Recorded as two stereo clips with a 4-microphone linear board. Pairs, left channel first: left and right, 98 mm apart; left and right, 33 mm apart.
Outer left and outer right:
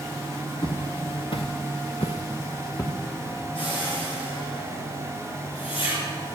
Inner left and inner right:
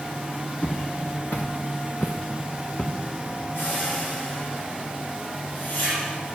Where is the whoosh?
70° left (ahead or behind), 4.5 m.